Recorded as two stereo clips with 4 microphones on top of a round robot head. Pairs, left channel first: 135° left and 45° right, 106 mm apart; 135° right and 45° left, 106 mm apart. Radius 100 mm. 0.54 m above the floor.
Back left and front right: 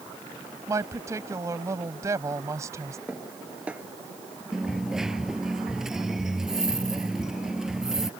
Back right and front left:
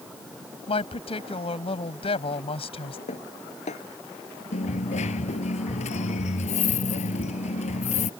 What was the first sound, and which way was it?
A woman speaking, 105° right.